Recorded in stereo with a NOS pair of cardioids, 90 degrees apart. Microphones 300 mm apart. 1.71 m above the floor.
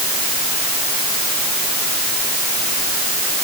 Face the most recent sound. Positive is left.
No sound to turn to.